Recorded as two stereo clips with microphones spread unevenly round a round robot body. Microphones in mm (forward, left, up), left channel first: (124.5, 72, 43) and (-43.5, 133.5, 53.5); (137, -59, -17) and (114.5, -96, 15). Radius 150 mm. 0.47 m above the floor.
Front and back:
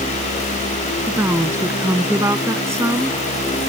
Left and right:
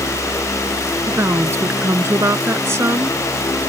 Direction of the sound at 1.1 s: 120° right.